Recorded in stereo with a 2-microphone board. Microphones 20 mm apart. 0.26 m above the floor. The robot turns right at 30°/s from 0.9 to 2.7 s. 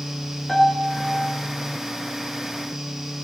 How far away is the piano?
About 2 m.